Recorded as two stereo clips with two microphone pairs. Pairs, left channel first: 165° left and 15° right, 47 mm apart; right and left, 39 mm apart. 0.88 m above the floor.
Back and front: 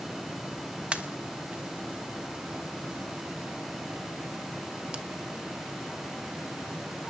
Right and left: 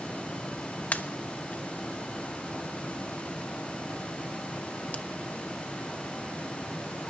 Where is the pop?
70° right, 1.1 m.